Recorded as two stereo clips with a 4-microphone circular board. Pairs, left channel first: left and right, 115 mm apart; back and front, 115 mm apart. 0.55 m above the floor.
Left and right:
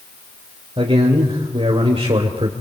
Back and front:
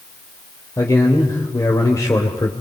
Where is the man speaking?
120° right, 2.5 m.